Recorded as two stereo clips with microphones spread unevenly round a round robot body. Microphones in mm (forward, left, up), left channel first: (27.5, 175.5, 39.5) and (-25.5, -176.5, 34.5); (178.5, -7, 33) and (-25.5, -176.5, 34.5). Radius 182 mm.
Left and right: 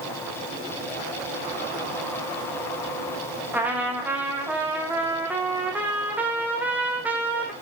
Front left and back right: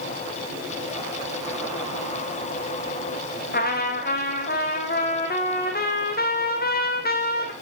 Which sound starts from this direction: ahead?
A trumpet, at 3.5 s.